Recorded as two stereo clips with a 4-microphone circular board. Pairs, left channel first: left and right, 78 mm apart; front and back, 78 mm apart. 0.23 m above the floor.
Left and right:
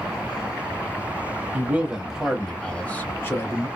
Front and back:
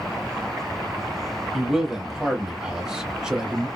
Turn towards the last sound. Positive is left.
turn(degrees=100)